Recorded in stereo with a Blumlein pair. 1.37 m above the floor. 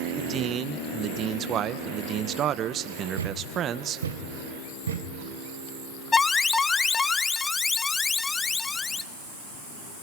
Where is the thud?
65° right, 3 m.